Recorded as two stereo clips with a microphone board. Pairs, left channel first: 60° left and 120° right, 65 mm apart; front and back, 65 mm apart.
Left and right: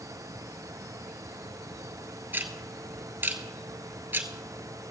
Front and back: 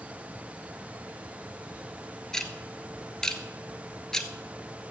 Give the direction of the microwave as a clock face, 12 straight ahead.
No microwave in this recording.